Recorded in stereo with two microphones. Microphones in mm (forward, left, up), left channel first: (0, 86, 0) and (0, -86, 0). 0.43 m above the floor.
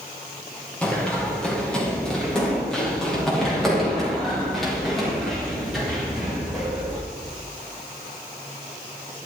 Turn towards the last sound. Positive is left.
turn(degrees=0)  # may be behind; listen again after turning